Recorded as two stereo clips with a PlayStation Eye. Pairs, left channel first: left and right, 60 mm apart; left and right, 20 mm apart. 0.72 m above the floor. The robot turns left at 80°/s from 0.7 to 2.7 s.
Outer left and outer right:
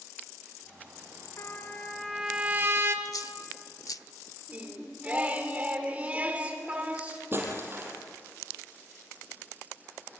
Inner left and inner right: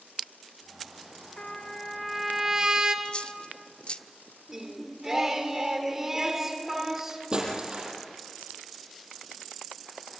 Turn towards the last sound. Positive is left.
turn(degrees=-40)  # may be behind; listen again after turning